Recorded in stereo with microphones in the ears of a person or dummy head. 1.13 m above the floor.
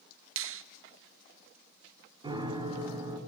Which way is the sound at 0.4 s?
60° right (ahead or behind).